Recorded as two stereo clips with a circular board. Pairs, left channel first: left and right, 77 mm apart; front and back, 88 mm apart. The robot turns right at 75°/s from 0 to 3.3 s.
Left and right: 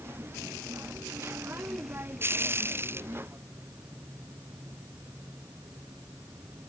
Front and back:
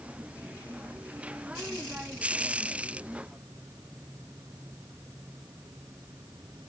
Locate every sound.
Only background noise.